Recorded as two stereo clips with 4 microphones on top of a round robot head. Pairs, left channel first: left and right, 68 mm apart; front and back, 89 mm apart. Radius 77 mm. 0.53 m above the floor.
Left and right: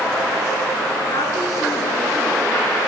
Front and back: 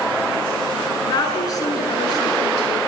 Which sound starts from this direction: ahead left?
A woman speaking, at 1.0 s.